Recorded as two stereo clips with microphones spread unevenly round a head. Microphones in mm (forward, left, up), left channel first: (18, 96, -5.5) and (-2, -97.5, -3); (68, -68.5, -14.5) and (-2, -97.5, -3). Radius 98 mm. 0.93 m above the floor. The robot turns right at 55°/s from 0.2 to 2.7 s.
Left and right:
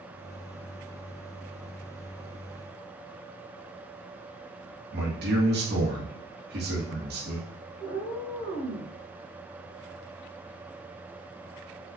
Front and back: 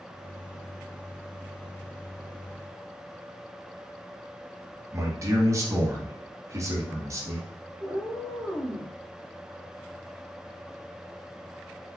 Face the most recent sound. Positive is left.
turn(degrees=165)